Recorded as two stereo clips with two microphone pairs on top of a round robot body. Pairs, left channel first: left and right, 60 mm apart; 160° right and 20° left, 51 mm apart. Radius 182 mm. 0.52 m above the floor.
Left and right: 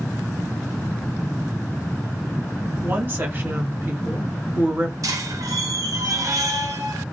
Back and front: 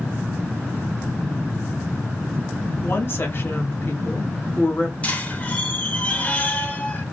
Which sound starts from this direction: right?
A squeak, at 5.0 s.